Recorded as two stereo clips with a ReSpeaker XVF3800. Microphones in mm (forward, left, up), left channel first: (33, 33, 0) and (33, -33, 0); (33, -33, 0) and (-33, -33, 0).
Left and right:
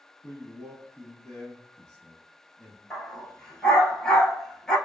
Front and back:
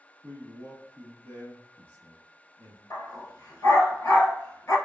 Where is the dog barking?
10° left, 1.1 m.